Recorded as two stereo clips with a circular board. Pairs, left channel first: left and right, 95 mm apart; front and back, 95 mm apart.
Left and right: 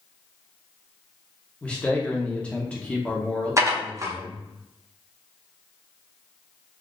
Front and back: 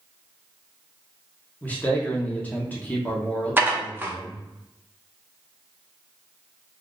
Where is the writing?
I don't hear writing.